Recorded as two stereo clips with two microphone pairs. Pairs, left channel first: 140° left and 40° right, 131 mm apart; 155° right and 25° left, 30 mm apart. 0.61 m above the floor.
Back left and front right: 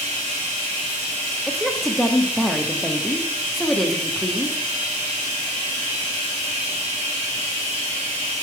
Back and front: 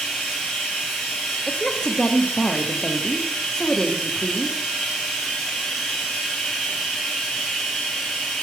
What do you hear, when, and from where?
0.0 s running water: 80° right, 2.5 m
1.5 s a woman speaking: 130° right, 0.6 m